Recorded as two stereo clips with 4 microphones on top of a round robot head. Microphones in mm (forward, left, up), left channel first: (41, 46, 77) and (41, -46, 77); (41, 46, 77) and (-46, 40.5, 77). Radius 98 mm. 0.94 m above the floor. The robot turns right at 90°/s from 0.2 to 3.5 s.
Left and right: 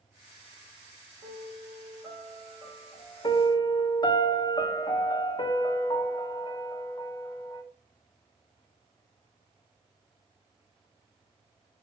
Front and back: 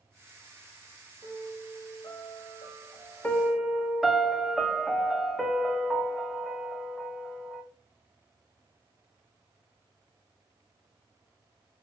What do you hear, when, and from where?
1.2 s a piano: 105° right, 3.5 m; by 4.2 s 100° left, 3.5 m
3.2 s a piano: 70° left, 1.2 m; by 7.6 s 90° left, 1.2 m